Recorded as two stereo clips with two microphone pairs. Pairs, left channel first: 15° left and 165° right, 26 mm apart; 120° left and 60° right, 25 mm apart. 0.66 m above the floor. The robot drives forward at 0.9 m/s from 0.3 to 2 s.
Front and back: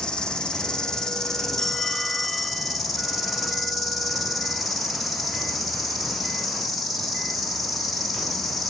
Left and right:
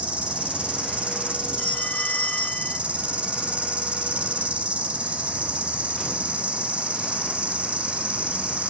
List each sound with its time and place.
0.0 s an insect: 35° right, 2.5 m; by 8.7 s 70° right, 1.7 m
1.6 s a phone ringing: 90° left, 2.5 m; by 2.8 s 100° left, 2.5 m